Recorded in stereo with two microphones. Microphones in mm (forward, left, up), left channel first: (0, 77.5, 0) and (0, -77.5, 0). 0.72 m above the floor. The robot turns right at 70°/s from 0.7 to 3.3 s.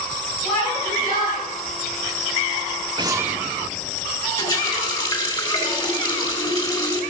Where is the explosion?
30° right (ahead or behind), 0.7 m; by 4.0 s 5° right (ahead or behind), 0.7 m.